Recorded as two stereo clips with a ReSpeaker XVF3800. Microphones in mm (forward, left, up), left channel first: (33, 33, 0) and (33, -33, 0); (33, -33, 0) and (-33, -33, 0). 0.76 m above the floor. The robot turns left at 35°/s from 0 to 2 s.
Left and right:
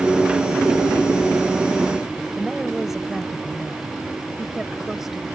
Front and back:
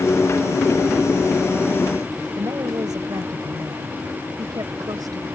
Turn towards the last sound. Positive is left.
turn(degrees=-175)